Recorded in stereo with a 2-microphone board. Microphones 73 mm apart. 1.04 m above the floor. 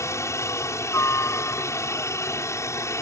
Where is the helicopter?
40° left (ahead or behind).